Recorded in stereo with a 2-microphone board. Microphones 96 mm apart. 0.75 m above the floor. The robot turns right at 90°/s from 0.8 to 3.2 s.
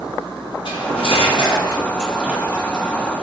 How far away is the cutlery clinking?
About 0.6 m.